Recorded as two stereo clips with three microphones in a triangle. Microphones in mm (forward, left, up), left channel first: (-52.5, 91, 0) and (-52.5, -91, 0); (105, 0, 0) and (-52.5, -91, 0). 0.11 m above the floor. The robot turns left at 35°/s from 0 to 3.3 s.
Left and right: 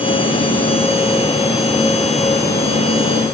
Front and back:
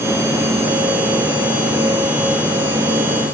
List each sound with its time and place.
Only background noise.